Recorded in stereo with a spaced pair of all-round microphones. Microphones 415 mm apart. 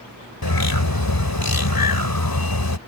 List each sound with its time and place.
0.4 s a bird: 55° left (ahead or behind)